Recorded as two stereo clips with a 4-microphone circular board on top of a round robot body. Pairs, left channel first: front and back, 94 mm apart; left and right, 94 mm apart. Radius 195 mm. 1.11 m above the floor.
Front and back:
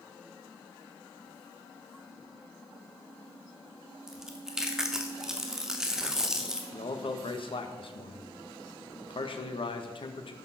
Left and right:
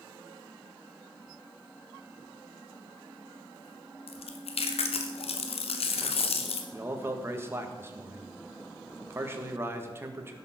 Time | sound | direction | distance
4.1 | chewing | 95° left | 1.0 m
6.7 | a man speaking | 25° right | 1.7 m